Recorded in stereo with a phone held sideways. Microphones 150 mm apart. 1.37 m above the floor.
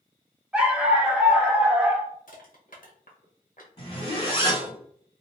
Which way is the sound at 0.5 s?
10° right (ahead or behind).